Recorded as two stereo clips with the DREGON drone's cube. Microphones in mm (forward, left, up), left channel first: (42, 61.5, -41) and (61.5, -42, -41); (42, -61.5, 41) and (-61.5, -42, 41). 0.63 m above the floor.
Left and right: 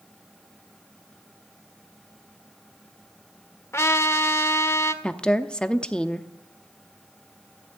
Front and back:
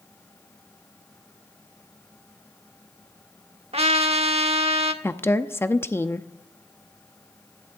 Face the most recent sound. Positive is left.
turn(degrees=30)